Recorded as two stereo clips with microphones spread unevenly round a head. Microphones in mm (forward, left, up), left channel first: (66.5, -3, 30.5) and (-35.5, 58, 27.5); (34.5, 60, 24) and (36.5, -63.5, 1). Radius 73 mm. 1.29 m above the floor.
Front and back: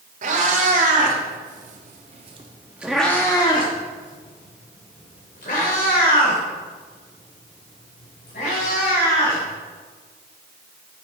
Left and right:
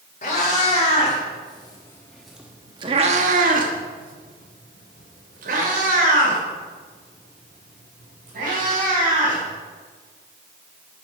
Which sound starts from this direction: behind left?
A cat meowing, at 0.2 s.